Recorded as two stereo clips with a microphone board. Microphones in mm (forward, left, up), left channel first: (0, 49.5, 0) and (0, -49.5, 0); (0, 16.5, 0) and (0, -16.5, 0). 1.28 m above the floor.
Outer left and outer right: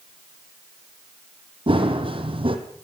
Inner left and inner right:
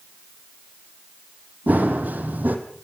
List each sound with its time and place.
1.7 s running footsteps: 65° right (ahead or behind), 3 m